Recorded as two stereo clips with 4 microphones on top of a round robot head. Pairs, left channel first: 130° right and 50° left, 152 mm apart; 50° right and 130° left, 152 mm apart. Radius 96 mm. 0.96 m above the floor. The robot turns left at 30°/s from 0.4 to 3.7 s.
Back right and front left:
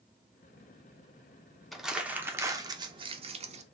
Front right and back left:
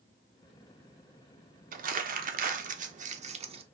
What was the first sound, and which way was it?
Crumpling, 140° left.